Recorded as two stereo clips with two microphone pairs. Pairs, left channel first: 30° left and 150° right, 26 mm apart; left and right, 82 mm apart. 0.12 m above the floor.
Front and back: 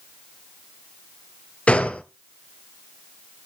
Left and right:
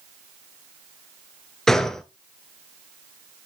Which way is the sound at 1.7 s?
15° left.